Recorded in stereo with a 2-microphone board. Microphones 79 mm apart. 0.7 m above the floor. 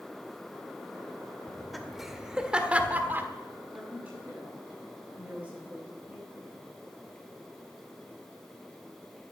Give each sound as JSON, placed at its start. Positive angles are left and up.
{"t": 1.5, "sound": "laughter", "side_deg": 5, "distance_m": 2.0}
{"t": 3.7, "sound": "a woman speaking", "side_deg": -15, "distance_m": 8.5}